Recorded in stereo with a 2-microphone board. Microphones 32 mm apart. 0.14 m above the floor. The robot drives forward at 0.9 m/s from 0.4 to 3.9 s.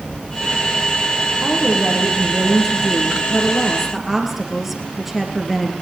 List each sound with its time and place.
1.4 s a woman speaking: 5° right (ahead or behind), 5.5 m; by 5.7 s 10° right (ahead or behind), 3 m